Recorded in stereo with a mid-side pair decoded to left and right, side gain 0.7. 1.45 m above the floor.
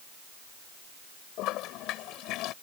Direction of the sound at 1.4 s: 60° left.